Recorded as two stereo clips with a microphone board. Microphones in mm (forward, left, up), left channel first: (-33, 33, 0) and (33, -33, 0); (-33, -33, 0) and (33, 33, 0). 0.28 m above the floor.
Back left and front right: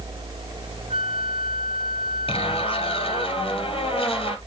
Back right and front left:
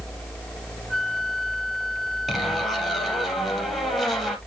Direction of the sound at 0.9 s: 45° right.